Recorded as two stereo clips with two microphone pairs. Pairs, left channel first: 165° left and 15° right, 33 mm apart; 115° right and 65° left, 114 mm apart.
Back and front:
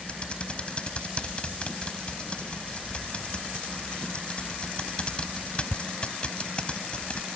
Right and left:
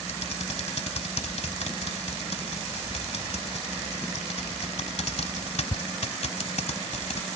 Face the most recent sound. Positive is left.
turn(degrees=-140)